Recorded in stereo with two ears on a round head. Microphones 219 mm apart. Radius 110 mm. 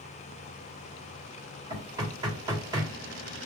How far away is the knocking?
About 1.3 m.